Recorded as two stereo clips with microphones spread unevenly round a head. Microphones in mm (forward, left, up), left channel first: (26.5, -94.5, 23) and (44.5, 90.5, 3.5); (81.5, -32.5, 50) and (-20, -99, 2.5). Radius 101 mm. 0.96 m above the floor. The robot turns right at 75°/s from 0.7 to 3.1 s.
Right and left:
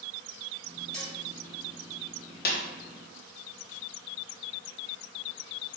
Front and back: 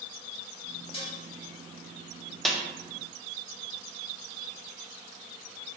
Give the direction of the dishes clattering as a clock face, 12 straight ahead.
12 o'clock.